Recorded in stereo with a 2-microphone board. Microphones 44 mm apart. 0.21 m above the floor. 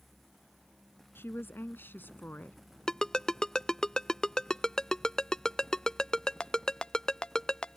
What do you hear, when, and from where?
1.1 s a woman speaking: 65° left (ahead or behind); by 2.6 s 45° left (ahead or behind)
2.9 s a ringtone: 15° left (ahead or behind)